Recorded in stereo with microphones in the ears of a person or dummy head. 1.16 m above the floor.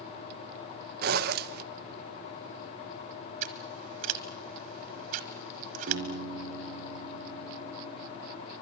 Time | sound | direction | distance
1.0 | a zipper | 60° right (ahead or behind) | 0.9 m
3.4 | scissors | 45° right (ahead or behind) | 1.3 m
5.9 | a piano | 70° right (ahead or behind) | 5 m